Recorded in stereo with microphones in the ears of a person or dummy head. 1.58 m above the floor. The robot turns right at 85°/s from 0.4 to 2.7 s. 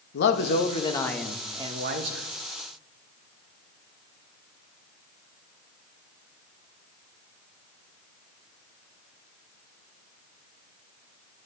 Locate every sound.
0.1 s a man speaking: 105° left, 1.5 m; by 2.3 s 95° right, 1.5 m